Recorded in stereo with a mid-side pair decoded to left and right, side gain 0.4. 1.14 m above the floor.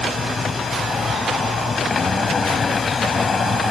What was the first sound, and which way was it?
A machine running, 40° left.